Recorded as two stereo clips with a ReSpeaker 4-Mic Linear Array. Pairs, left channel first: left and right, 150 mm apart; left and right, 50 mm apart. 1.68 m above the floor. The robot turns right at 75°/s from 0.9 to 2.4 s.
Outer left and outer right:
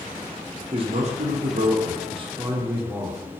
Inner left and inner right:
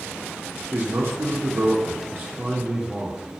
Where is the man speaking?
140° right, 0.5 m; by 3.3 s 25° right, 0.5 m.